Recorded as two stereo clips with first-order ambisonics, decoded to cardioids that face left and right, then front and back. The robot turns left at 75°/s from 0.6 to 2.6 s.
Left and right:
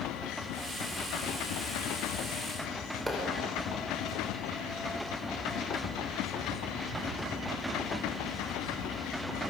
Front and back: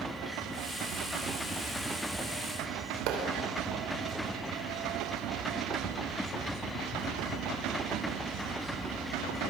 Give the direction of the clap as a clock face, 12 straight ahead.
6 o'clock.